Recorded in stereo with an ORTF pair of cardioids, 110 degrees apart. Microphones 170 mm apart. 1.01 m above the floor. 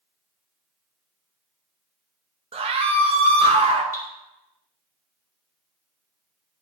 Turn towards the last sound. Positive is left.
turn(degrees=15)